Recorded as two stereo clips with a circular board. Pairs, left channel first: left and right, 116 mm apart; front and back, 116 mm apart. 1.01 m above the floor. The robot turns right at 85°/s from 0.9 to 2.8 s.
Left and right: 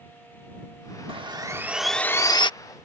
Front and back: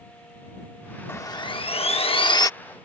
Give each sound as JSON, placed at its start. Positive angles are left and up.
{"t": 1.1, "sound": "sawing", "azimuth_deg": -65}